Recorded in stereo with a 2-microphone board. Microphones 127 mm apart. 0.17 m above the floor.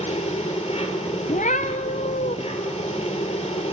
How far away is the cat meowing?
About 0.8 m.